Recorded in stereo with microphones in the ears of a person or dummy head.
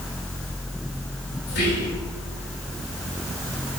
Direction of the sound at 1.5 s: 50° left (ahead or behind).